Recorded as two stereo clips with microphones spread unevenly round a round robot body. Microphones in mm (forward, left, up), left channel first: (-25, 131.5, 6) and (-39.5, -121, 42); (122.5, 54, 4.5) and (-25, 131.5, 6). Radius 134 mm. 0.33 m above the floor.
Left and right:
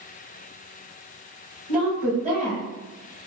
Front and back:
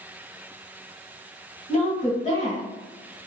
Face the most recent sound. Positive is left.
turn(degrees=-30)